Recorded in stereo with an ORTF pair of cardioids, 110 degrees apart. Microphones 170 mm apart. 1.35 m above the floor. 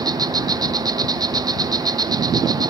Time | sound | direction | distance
0.0 | an insect | 25° right | 0.9 m